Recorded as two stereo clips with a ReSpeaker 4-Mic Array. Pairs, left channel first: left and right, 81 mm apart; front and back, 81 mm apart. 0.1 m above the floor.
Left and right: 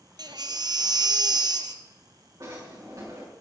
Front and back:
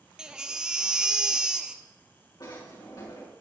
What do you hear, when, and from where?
0.2 s a baby crying: 100° right, 0.8 m
2.4 s a drawer: 40° right, 6 m